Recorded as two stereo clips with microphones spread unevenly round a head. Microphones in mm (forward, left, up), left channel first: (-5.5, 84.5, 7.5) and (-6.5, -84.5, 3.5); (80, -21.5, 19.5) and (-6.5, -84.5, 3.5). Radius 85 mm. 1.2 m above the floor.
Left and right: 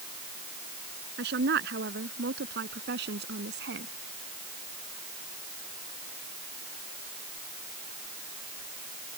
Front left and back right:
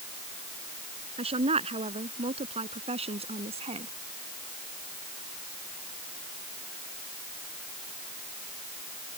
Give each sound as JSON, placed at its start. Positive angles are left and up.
{"t": 1.2, "sound": "a woman speaking", "azimuth_deg": -120}